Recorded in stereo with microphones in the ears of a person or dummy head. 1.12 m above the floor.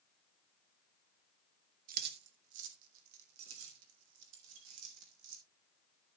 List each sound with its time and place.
1.9 s keys jangling: 50° right (ahead or behind), 1.8 m; by 5.4 s 80° right, 4.5 m